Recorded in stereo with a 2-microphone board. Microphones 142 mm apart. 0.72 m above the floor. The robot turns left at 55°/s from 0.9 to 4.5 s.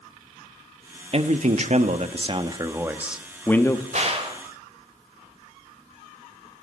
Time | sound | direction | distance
1.1 | a man speaking | 65° right | 0.8 m
3.9 | a gunshot | 55° right (ahead or behind) | 1.4 m